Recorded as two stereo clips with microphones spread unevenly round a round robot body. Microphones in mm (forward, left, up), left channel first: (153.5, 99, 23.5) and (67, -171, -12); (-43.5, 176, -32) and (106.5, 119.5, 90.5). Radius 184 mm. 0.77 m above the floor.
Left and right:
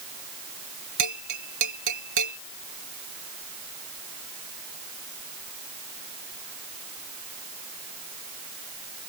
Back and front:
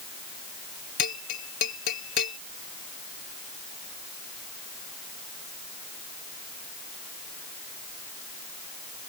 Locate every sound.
1.0 s a bell: 155° right